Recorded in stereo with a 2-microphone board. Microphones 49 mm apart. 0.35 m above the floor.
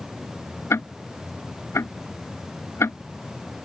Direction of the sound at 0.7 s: 65° left (ahead or behind).